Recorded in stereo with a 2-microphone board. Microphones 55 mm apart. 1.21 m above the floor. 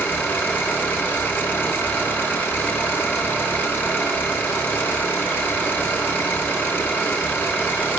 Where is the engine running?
40° left (ahead or behind), 1.6 m.